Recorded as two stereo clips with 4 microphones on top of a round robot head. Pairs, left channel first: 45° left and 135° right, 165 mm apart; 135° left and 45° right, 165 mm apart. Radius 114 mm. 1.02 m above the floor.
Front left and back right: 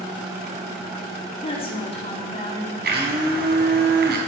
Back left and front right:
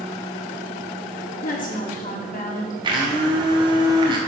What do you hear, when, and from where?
1.4 s a woman speaking: 100° left, 3.5 m
2.8 s a blender: 110° right, 3.5 m